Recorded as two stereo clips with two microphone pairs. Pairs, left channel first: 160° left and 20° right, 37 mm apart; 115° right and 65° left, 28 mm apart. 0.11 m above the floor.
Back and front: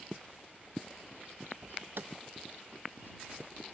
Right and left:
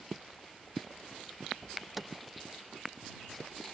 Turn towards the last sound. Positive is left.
turn(degrees=-20)